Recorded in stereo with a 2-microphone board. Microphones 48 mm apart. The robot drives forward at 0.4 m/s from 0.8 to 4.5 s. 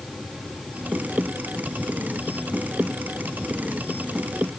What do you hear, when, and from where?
Only background noise.